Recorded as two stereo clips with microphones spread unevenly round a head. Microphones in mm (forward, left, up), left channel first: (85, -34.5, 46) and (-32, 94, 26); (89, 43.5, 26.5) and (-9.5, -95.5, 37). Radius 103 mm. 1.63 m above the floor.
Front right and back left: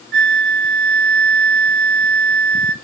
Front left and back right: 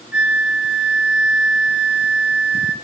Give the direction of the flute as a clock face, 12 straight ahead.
7 o'clock.